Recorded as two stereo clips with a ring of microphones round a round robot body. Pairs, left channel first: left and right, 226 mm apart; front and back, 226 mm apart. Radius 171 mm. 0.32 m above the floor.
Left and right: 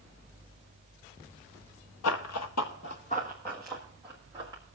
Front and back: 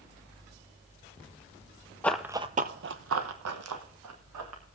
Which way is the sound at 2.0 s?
85° left.